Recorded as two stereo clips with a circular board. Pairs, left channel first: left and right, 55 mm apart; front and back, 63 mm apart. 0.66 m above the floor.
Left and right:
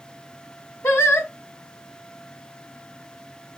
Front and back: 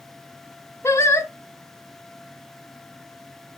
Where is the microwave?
I don't hear a microwave.